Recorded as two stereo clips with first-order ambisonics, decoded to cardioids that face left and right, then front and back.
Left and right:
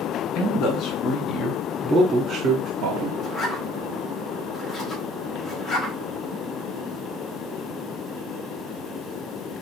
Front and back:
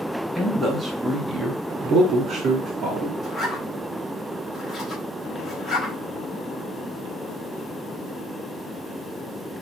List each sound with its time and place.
0.3 s a man speaking: 90° left, 1.2 m; by 3.1 s 115° right, 1.1 m
3.2 s a zipper: 55° left, 0.9 m